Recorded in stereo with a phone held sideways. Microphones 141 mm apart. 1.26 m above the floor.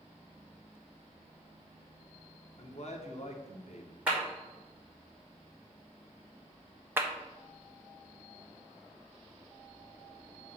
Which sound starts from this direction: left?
A man speaking, at 2.6 s.